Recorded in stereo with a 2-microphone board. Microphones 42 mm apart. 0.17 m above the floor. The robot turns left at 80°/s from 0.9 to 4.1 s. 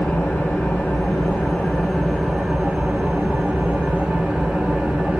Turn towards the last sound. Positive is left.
turn(degrees=-145)